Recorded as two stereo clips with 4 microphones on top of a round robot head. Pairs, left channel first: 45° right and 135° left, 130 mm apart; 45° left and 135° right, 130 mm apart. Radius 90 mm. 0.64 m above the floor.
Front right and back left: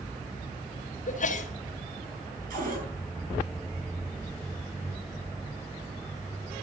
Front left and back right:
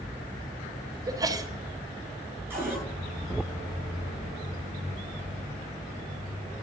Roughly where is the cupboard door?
Behind left.